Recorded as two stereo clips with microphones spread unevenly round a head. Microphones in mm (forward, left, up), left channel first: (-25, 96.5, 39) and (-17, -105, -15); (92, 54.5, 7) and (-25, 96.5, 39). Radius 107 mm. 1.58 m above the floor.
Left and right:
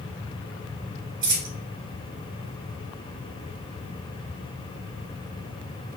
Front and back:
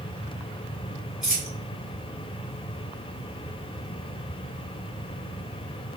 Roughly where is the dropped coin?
Behind right.